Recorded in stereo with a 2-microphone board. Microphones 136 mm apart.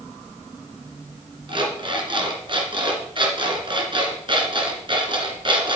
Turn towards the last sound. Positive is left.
turn(degrees=-40)  # may be behind; listen again after turning